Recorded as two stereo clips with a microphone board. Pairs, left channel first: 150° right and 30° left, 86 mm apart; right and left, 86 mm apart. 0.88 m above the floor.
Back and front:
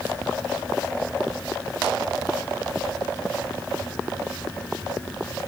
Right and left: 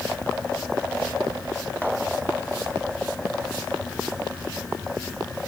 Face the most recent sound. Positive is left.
No sound to turn to.